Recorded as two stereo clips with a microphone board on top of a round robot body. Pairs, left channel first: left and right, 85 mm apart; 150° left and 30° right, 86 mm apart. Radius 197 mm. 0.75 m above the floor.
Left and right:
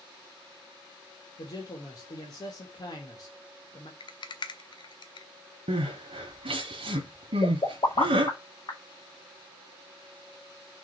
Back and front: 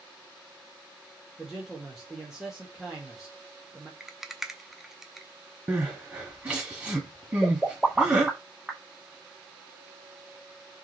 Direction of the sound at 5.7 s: 105° right.